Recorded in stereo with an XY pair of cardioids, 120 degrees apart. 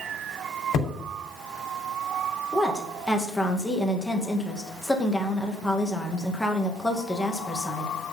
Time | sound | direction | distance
0.7 | hammering | 70° left | 4 m
2.5 | a woman speaking | 10° left | 1.9 m